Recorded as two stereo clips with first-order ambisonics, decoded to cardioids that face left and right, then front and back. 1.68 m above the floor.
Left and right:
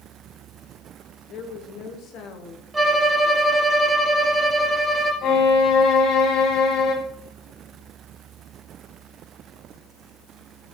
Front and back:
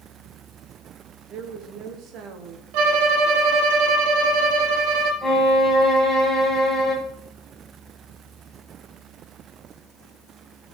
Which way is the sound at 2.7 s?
170° right.